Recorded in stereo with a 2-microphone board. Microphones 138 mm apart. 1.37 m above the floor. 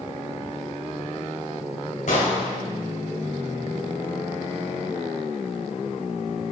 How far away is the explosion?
About 2.5 m.